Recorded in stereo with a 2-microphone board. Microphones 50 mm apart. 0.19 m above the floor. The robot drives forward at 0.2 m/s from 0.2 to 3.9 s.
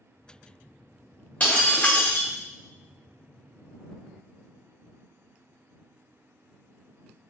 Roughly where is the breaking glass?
Left.